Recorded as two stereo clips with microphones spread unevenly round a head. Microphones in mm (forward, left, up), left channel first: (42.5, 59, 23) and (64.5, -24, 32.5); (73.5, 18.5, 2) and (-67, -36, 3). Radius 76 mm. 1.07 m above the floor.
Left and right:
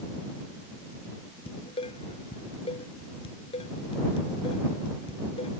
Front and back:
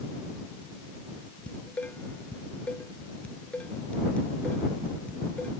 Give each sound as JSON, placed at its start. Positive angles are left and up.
{"t": 1.5, "sound": "dishes clattering", "azimuth_deg": 105}